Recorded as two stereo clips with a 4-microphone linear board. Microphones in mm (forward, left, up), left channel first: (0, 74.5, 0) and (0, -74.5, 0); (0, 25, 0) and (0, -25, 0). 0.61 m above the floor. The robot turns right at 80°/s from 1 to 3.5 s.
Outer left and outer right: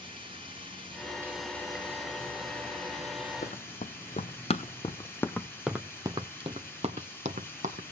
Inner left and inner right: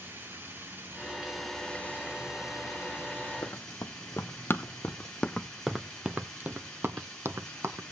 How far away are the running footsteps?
About 1.2 m.